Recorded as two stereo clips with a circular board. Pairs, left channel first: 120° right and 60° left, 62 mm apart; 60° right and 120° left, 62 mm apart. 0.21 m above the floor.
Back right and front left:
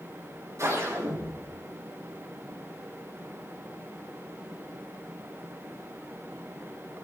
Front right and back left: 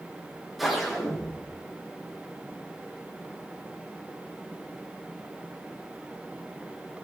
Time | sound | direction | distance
0.6 | a whoosh | 30° left | 3.5 m